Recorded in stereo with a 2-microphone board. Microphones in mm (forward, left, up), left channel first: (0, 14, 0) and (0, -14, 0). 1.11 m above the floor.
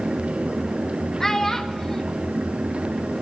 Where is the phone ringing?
No phone ringing in this recording.